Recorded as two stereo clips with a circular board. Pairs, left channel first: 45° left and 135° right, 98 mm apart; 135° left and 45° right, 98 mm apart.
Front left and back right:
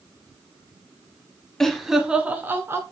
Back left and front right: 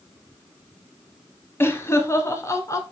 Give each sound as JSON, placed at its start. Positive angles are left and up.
{"t": 1.6, "sound": "laughter", "azimuth_deg": 125, "distance_m": 1.1}